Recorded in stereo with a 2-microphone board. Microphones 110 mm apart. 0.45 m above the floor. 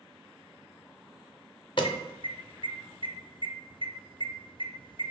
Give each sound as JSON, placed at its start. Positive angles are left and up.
{"t": 1.8, "sound": "an alarm", "side_deg": 45, "distance_m": 0.6}